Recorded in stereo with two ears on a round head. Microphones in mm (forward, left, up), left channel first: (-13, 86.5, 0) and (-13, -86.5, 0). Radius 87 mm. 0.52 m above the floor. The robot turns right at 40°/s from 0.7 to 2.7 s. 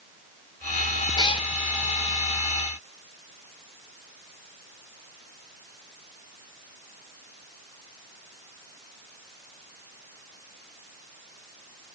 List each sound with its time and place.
1.2 s a cat meowing: 20° left (ahead or behind), 0.5 m; by 1.5 s 30° left (ahead or behind), 0.5 m